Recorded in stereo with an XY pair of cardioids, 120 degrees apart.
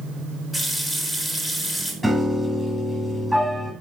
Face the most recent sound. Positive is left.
turn(degrees=-5)